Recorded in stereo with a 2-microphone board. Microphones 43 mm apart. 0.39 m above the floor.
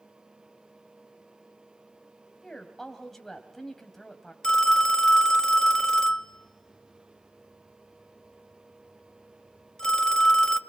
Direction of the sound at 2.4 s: 5° left (ahead or behind).